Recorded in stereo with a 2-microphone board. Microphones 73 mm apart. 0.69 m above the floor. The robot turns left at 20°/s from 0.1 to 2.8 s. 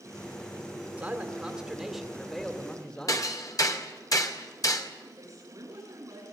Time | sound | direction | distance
1.0 | a man speaking | 160° right | 2.5 m
3.1 | hammering | 55° left (ahead or behind) | 2.5 m
5.2 | a woman speaking | 45° right (ahead or behind) | 9.5 m